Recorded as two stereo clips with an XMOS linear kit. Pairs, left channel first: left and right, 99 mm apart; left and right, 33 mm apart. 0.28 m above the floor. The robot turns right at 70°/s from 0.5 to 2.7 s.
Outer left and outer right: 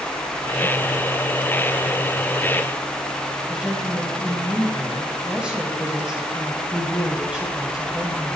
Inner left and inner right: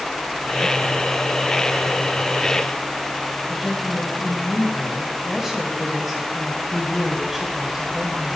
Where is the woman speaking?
10° right (ahead or behind), 1.4 m.